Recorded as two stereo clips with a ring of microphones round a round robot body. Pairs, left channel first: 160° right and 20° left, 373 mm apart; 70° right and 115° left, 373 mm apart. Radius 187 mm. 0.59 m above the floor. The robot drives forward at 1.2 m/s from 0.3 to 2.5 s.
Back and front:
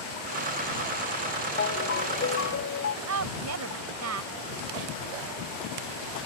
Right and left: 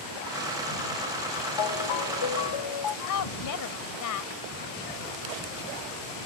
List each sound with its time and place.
1.6 s a ringtone: 90° right; by 3.0 s 100° right
3.1 s a woman speaking: 25° right